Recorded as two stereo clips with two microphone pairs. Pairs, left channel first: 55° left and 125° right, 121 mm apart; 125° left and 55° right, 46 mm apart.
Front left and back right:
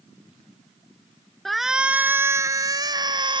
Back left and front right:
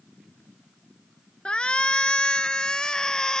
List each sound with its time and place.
1.4 s a shout: 140° left; by 3.4 s 160° right